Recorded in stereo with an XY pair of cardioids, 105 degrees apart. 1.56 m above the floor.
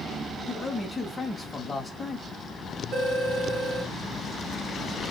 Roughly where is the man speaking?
Ahead.